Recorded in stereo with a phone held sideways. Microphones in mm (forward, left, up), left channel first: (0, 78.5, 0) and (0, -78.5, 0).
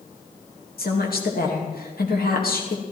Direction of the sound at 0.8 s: 75° left (ahead or behind).